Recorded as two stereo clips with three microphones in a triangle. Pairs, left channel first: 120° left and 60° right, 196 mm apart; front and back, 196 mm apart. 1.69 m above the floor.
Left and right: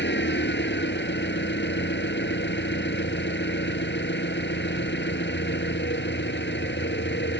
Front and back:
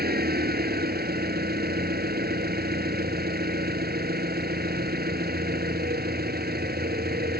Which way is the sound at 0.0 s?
145° left.